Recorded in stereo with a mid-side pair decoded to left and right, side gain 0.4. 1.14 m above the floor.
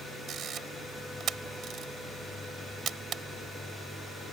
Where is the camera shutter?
70° right.